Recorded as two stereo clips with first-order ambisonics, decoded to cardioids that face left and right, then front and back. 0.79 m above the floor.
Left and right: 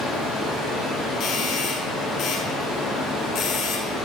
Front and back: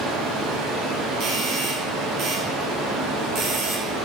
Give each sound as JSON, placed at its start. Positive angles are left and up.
{"t": 0.0, "sound": "running water", "azimuth_deg": 180, "distance_m": 5.5}
{"t": 1.2, "sound": "a doorbell", "azimuth_deg": 140, "distance_m": 2.5}